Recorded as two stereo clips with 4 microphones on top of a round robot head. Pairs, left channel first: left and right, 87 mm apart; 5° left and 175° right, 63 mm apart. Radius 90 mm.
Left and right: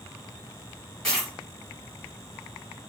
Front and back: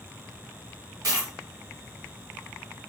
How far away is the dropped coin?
About 1.3 m.